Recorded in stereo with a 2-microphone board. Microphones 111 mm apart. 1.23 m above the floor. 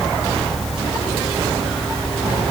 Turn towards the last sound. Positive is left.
No sound to turn to.